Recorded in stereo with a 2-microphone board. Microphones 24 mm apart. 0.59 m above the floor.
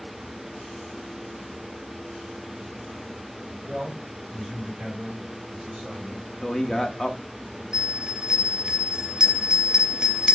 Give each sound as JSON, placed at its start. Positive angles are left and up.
{"t": 3.6, "sound": "a man speaking", "side_deg": -5, "distance_m": 4.5}
{"t": 6.4, "sound": "a man speaking", "side_deg": 20, "distance_m": 0.7}
{"t": 7.7, "sound": "a bell", "side_deg": -30, "distance_m": 1.1}